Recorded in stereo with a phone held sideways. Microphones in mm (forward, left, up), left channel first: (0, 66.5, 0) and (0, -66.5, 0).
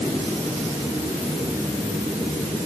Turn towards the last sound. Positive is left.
No sound to turn to.